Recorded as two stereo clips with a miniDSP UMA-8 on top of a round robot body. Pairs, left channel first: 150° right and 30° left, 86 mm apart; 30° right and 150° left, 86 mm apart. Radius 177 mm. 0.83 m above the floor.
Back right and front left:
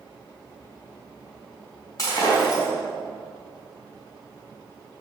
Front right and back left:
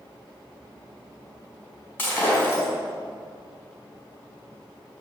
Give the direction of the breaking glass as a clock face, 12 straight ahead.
3 o'clock.